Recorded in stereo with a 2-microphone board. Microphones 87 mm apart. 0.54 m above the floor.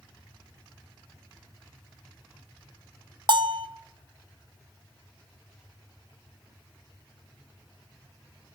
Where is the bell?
55° right (ahead or behind), 0.8 m.